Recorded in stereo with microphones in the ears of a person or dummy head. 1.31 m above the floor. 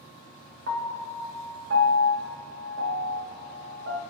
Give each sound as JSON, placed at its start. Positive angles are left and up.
{"t": 0.7, "sound": "a piano", "side_deg": -50, "distance_m": 0.6}